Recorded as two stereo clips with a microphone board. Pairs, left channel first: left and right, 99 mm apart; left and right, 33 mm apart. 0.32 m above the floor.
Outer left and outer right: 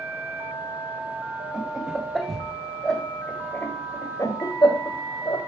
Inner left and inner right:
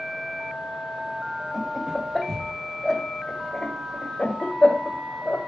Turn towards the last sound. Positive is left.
turn(degrees=45)  # may be behind; listen again after turning